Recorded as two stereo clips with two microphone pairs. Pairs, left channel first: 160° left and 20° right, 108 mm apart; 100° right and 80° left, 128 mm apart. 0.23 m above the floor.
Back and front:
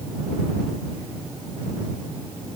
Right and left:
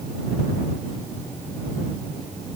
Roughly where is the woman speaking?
I don't hear a woman speaking.